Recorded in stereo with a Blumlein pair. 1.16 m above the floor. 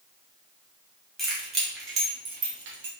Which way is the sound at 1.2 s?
15° right.